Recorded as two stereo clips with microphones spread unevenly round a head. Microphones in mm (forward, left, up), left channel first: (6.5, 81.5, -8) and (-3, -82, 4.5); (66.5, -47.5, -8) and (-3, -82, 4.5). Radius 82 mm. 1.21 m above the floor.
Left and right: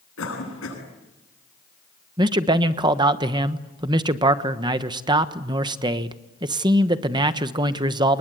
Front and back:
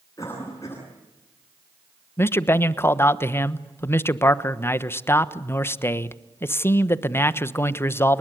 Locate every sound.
0.2 s a cough: 100° left, 9.5 m
2.2 s a man speaking: 25° right, 1.2 m